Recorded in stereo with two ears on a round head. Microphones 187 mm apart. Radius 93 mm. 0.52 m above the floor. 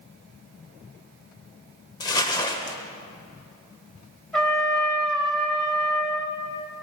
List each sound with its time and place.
2.0 s crumpling: 20° left (ahead or behind), 1.1 m
4.3 s a trumpet: 5° left (ahead or behind), 1.3 m